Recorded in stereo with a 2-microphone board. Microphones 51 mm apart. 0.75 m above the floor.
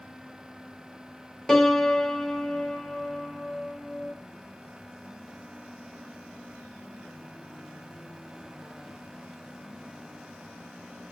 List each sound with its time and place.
1.5 s a piano: 10° left (ahead or behind), 0.8 m